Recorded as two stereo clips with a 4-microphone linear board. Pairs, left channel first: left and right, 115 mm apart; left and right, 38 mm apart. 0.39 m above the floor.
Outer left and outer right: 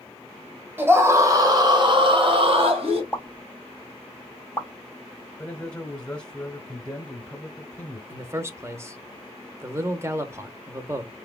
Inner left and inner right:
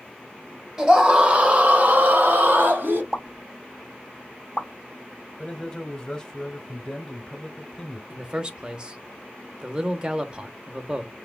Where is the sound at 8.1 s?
25° right (ahead or behind), 0.8 m.